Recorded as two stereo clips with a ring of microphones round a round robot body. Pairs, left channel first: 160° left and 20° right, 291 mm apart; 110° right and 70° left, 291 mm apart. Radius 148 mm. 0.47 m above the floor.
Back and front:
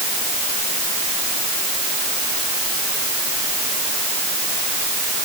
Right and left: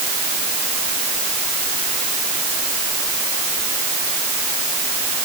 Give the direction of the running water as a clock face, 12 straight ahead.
No running water in this recording.